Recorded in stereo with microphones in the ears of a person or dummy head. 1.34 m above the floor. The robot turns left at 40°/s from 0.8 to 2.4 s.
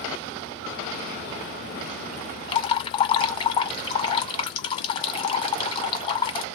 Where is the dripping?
35° left (ahead or behind), 1.1 m.